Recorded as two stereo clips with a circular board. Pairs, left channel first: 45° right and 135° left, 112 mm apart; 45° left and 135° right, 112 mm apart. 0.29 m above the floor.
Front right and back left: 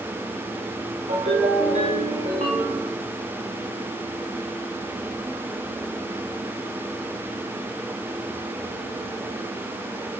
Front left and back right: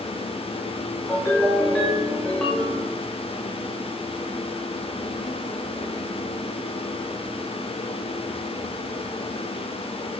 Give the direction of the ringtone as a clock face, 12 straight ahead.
8 o'clock.